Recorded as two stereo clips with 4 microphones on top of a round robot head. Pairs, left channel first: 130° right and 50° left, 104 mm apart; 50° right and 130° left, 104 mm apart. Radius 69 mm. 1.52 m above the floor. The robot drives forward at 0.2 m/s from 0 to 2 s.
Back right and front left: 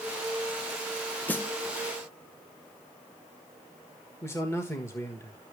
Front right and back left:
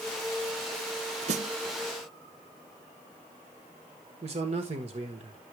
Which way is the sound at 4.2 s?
160° left.